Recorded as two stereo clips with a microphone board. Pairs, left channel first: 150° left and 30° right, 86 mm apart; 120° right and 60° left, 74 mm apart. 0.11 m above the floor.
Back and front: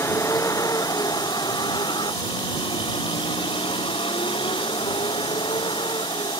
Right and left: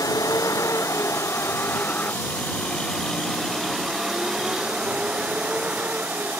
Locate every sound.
0.0 s a vehicle: 155° right; by 6.4 s 130° left